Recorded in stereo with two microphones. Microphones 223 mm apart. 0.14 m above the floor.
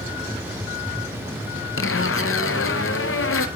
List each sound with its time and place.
1.8 s a zipper: 70° left (ahead or behind), 0.5 m